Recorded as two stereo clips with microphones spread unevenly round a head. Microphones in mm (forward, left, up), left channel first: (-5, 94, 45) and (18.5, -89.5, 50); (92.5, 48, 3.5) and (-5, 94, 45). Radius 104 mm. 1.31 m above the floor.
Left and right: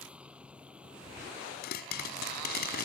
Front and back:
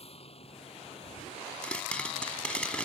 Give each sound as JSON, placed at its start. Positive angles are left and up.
{"t": 0.0, "sound": "a vehicle", "azimuth_deg": 0}
{"t": 1.6, "sound": "a pop", "azimuth_deg": 55}